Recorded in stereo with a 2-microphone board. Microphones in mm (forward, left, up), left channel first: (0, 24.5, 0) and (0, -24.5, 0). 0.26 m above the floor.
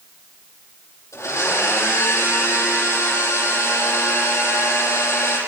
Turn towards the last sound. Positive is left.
turn(degrees=75)  # may be behind; listen again after turning